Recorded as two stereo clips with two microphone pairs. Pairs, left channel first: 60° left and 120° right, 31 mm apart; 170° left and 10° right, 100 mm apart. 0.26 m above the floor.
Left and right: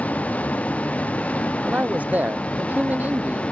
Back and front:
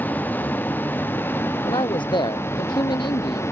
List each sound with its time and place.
0.0 s a vehicle: 100° left; by 3.5 s 110° left
1.6 s a man speaking: 150° right